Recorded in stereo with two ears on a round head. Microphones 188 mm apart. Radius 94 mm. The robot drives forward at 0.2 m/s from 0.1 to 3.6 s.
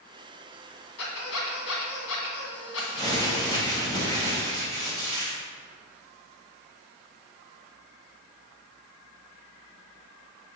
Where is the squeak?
80° left, 2 m; by 3.7 s 70° left (ahead or behind), 2 m.